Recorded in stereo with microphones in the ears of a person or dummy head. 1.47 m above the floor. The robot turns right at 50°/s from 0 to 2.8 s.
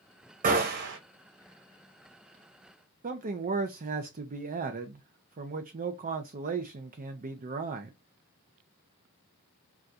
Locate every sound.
0.4 s a gunshot: 35° right (ahead or behind), 0.6 m; by 1.0 s 65° right (ahead or behind), 0.6 m
3.0 s a man speaking: 35° right (ahead or behind), 0.5 m